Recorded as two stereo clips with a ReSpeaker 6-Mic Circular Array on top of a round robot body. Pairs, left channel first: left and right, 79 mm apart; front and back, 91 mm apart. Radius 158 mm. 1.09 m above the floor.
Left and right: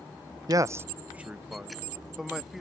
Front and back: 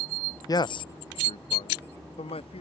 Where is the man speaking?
50° right; by 2.6 s 5° right.